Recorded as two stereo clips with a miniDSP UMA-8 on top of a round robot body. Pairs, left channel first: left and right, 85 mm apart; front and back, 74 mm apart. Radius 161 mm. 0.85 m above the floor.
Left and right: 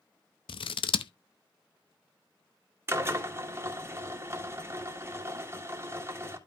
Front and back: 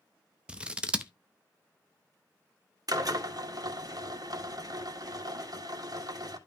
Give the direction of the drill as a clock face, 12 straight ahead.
5 o'clock.